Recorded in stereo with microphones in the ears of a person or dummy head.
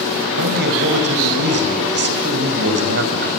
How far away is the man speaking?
About 5.5 m.